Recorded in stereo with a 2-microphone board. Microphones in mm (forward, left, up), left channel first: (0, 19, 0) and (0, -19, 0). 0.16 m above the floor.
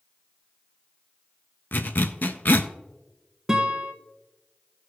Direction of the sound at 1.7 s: 65° left (ahead or behind).